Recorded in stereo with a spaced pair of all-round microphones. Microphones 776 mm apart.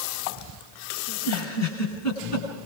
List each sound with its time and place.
1.1 s a giggle: 20° left (ahead or behind), 9.5 m